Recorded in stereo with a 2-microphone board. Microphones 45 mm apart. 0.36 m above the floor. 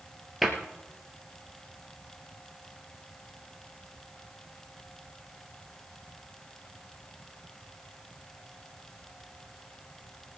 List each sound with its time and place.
0.4 s a cupboard door: 5° right (ahead or behind), 2.5 m